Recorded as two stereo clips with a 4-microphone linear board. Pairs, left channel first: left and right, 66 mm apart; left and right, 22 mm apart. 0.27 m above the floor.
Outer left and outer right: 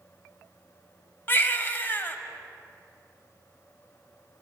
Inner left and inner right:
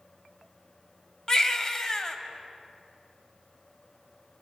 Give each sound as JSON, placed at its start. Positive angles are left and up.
{"t": 1.3, "sound": "a baby crying", "side_deg": 35, "distance_m": 0.5}